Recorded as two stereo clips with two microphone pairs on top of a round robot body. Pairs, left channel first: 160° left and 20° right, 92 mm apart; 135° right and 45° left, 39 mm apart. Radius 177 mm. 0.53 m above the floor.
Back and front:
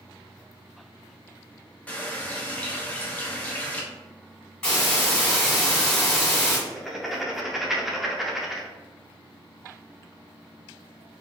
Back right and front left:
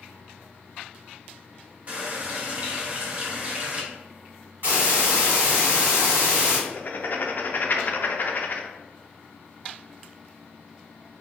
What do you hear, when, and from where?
1.9 s a running tap: 95° left, 0.8 m
4.6 s a hiss: 85° left, 1.5 m
6.7 s writing: 110° right, 0.5 m